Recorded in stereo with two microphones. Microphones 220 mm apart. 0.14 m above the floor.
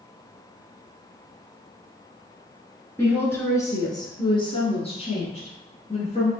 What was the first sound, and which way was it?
A woman speaking, 10° left (ahead or behind).